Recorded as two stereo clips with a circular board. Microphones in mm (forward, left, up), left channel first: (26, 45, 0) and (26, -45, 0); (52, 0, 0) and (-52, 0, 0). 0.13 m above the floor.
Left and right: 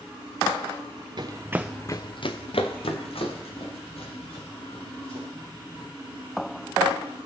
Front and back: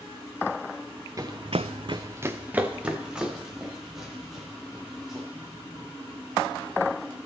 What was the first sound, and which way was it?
Running footsteps, 125° right.